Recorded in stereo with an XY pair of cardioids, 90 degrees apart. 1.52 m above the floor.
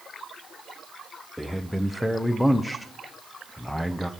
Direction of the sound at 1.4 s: 10° left.